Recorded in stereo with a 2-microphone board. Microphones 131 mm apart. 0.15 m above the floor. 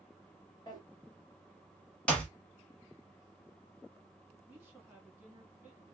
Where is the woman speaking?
15° right (ahead or behind), 1.3 m.